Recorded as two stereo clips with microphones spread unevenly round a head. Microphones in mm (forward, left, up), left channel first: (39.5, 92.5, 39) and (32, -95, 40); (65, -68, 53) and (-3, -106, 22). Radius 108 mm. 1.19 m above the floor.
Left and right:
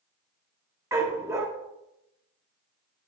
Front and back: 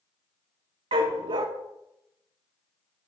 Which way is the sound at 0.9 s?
165° right.